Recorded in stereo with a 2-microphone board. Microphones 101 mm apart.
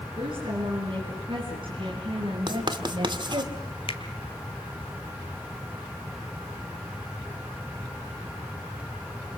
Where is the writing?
50° right (ahead or behind), 1.8 m.